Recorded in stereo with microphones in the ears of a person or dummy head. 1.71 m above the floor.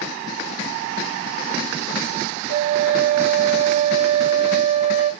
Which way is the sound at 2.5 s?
35° right (ahead or behind).